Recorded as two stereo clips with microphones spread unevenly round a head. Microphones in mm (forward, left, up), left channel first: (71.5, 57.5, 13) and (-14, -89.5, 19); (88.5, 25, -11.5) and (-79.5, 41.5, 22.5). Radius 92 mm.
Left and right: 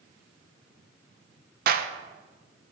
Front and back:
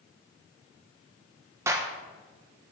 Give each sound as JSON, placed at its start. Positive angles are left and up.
{"t": 1.7, "sound": "a clap", "azimuth_deg": -105, "distance_m": 0.6}